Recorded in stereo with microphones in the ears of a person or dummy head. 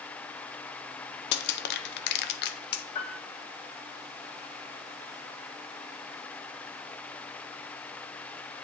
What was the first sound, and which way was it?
Crushing, 65° left (ahead or behind).